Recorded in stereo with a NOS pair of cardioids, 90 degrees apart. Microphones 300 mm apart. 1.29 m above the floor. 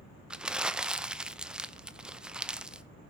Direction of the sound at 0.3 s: 5° right.